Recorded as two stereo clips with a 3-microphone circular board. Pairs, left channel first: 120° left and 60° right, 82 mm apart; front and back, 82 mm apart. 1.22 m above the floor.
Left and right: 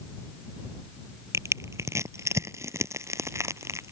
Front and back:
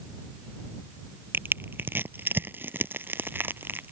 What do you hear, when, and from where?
1.3 s crushing: 115° right